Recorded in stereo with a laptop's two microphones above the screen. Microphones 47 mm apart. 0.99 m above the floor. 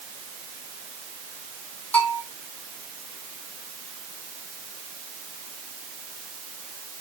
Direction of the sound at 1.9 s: 30° left (ahead or behind).